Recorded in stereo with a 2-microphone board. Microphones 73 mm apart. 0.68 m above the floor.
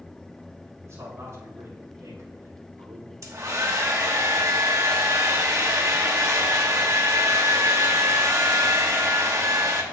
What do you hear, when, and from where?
0.8 s a man speaking: 40° right (ahead or behind), 3 m; by 3.1 s 55° right (ahead or behind), 1.9 m
3.2 s a hair dryer: 45° right (ahead or behind), 1.1 m